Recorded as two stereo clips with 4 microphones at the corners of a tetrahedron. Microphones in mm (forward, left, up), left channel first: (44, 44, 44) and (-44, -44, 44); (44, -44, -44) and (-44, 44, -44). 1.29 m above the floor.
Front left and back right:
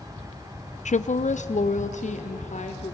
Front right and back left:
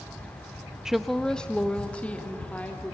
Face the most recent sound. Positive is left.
turn(degrees=35)